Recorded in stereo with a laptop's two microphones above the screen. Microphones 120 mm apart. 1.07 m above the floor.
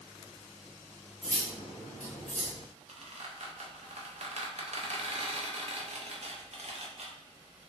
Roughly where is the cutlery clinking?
Left.